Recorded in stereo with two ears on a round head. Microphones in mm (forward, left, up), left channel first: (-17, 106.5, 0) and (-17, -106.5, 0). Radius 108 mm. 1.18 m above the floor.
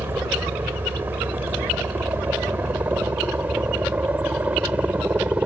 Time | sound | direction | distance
0.0 | a helicopter | 10° right (ahead or behind) | ?